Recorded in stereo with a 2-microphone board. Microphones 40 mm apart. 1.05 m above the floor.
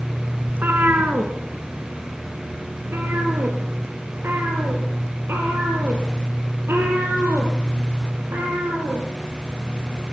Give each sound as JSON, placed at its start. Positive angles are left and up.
{"t": 0.5, "sound": "a cat meowing", "side_deg": -55, "distance_m": 2.0}